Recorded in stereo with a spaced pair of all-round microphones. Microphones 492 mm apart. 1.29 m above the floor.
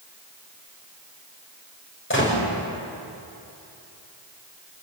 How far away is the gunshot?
About 6 m.